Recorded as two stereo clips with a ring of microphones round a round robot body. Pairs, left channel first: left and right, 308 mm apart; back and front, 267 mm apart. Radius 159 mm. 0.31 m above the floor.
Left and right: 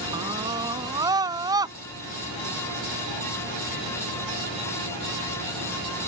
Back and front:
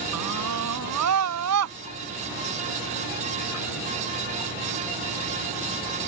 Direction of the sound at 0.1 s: 15° right.